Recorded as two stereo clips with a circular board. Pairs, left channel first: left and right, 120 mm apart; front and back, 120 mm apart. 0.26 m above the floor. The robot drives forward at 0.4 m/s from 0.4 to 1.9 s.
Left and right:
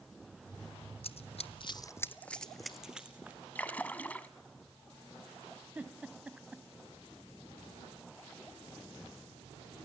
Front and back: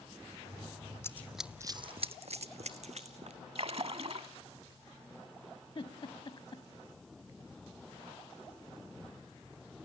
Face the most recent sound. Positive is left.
turn(degrees=-15)